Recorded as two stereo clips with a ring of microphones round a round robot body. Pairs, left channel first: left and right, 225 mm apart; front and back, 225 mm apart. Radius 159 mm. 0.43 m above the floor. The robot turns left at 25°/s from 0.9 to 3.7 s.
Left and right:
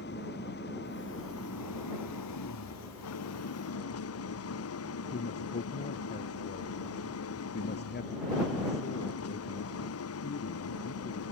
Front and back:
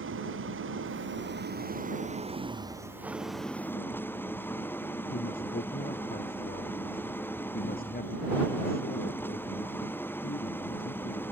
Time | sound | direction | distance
0.0 | an engine running | 150° left | ?
5.1 | a man speaking | 50° left | ?